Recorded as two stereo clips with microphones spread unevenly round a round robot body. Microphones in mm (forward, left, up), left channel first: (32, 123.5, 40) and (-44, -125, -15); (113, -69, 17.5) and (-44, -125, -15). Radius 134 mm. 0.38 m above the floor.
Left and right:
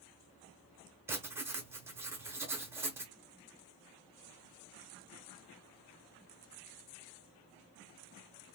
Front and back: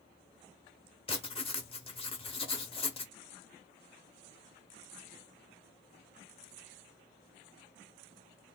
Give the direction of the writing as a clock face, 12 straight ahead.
1 o'clock.